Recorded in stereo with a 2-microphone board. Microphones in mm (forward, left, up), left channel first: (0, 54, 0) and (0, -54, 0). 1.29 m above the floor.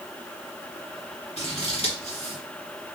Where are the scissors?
70° left (ahead or behind), 1.8 m.